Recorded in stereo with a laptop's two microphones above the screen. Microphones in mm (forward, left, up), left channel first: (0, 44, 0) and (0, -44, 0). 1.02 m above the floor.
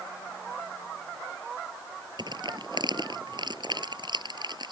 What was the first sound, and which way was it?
Crushing, 55° right (ahead or behind).